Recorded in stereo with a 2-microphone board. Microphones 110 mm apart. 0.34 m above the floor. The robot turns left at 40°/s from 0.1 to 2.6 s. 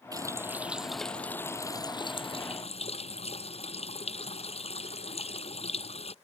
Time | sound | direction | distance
0.1 | a running tap | 145° right | ?